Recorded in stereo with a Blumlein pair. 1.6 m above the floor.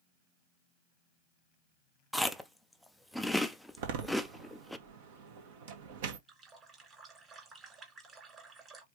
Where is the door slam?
50° right, 1.1 m.